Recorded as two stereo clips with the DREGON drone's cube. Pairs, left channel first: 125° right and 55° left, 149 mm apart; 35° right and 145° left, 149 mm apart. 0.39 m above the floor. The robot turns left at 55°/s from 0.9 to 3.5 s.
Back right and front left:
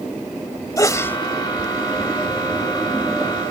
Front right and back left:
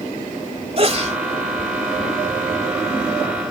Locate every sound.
0.8 s a sneeze: 175° left; by 1.2 s 160° left